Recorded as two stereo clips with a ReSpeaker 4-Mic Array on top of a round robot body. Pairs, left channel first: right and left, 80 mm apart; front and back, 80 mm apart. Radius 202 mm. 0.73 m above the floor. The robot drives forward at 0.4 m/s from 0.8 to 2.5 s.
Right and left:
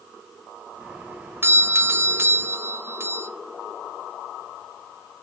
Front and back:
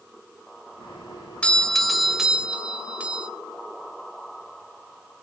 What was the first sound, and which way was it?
A doorbell, 65° left.